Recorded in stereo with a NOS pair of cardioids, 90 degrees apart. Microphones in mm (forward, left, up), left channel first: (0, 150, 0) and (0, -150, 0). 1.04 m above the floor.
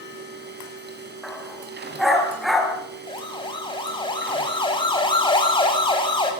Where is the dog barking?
Straight ahead, 5.5 m.